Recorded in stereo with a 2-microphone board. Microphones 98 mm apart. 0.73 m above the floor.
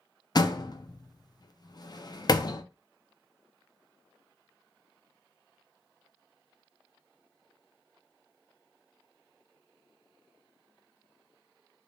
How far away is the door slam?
About 0.5 m.